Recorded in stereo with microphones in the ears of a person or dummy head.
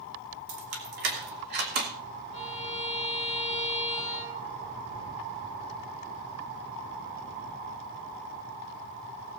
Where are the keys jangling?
60° right (ahead or behind), 2.5 m; by 1.9 s 50° right (ahead or behind), 1.7 m.